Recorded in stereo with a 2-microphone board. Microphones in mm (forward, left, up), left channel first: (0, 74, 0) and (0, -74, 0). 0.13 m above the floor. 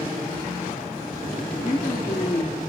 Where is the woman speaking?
20° left (ahead or behind), 1.8 m.